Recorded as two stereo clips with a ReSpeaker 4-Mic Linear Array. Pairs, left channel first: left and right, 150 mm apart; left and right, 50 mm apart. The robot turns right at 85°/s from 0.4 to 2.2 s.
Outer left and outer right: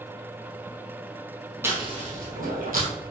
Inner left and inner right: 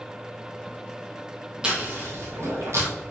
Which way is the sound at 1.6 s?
15° right (ahead or behind).